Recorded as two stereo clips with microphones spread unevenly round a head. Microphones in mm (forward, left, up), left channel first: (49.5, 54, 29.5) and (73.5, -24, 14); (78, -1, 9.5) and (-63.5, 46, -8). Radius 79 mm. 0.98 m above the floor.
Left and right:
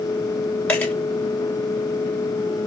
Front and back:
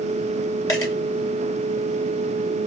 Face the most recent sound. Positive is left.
turn(degrees=45)